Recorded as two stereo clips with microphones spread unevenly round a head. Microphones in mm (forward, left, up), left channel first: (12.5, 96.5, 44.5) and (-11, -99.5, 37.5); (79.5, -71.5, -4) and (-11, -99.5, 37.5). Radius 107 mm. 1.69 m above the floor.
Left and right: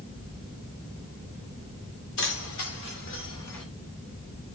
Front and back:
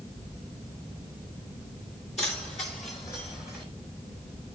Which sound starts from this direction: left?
Keys jangling, at 2.2 s.